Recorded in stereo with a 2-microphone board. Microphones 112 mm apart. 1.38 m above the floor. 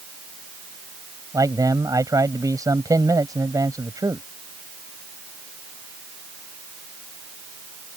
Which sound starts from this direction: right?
A man speaking, at 1.3 s.